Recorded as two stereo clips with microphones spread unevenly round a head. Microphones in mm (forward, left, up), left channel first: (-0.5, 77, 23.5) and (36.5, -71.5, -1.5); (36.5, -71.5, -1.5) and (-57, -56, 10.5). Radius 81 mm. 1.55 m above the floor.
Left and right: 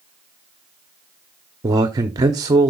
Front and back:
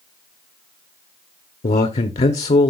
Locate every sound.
1.6 s a man speaking: 10° right, 0.7 m